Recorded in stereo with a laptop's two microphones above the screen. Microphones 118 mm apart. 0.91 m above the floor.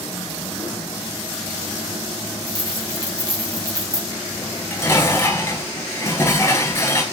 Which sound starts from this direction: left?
Dishes clattering, at 4.4 s.